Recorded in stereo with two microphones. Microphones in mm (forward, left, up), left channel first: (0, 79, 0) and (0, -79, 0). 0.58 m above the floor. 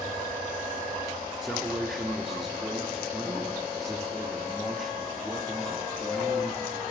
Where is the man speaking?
Centre (ahead or behind), 1.0 m.